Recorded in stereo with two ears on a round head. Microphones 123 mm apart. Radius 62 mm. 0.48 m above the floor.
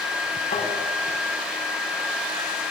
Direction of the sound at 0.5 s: 55° left (ahead or behind).